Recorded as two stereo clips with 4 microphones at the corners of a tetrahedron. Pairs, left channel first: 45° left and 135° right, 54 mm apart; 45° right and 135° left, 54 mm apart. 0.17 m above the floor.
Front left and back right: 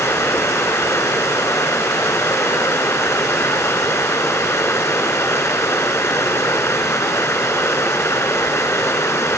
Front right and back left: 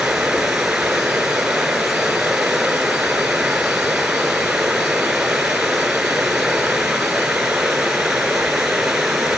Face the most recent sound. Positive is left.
turn(degrees=55)